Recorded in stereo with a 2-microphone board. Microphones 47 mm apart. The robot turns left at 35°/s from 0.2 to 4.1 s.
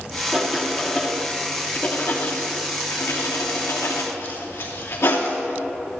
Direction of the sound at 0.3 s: 20° right (ahead or behind).